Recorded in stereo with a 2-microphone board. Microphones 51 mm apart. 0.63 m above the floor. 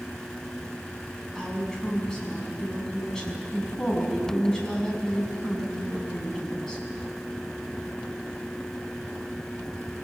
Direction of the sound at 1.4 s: 10° left (ahead or behind).